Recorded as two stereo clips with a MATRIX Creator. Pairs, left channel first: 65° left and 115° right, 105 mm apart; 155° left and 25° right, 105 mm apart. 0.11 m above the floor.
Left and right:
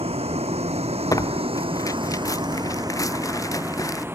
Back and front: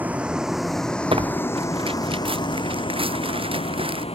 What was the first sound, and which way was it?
A vehicle, 95° right.